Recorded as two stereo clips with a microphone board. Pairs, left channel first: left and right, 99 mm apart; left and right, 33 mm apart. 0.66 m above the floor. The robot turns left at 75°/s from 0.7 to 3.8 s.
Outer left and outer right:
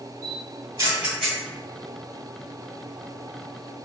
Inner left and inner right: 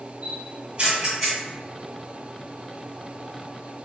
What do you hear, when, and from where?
0.2 s a camera shutter: 40° right (ahead or behind), 1.9 m; by 1.4 s 10° left (ahead or behind), 1.9 m